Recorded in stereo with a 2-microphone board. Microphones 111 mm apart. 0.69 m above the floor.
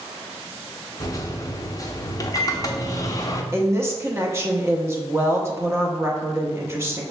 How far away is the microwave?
About 0.5 m.